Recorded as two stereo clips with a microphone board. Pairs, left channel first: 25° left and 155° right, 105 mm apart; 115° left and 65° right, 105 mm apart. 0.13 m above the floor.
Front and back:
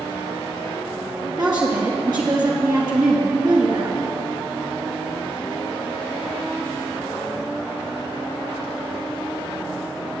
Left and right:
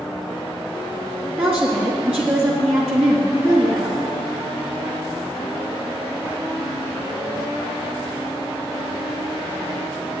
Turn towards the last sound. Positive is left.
turn(degrees=-145)